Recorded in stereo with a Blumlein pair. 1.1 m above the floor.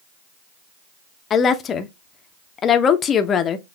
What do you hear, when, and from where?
1.3 s a woman speaking: 25° left, 0.6 m